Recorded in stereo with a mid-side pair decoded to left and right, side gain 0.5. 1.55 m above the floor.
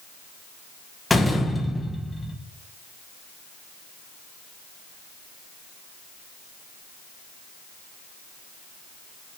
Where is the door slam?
25° left, 1.6 m.